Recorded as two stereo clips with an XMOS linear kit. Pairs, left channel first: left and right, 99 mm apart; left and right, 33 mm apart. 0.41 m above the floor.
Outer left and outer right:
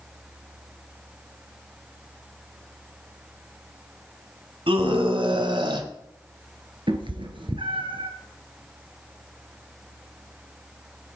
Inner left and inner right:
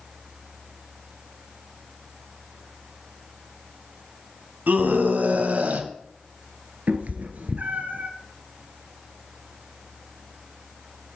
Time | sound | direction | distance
4.7 | a scream | 65° right (ahead or behind) | 2.5 m
6.9 | a cat meowing | 60° right (ahead or behind) | 1.8 m